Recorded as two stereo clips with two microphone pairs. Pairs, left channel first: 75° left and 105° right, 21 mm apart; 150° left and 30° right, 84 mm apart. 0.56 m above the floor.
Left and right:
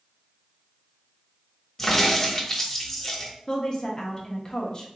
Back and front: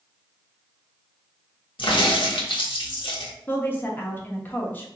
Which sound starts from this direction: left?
A woman speaking, at 3.5 s.